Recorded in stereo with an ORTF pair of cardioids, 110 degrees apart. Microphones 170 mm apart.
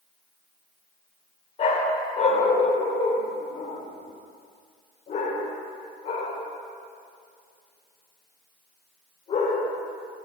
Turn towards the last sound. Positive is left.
turn(degrees=45)